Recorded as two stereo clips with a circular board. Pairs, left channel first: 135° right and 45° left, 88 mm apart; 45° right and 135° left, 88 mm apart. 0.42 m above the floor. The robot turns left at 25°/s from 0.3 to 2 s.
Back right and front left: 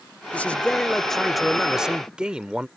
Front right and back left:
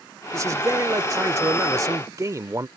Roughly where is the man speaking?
Behind.